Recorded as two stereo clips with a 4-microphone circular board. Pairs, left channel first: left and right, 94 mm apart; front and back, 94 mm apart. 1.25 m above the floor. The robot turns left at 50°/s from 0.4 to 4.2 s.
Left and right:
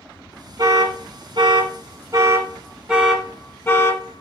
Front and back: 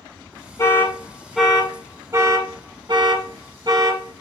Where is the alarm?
60° right, 1.1 m; by 4.2 s 120° left, 1.1 m.